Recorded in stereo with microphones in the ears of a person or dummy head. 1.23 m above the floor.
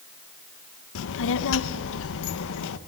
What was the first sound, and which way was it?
A child speaking, 75° left (ahead or behind).